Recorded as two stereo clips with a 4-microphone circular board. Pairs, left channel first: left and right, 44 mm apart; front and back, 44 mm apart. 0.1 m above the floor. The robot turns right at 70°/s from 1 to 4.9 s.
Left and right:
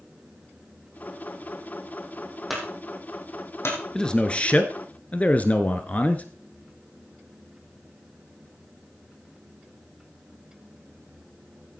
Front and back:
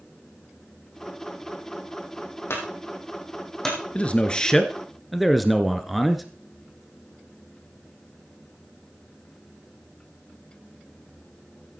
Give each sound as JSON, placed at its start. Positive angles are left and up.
{"t": 2.5, "sound": "a clunk", "azimuth_deg": -5, "distance_m": 4.5}
{"t": 4.0, "sound": "a man speaking", "azimuth_deg": 25, "distance_m": 1.3}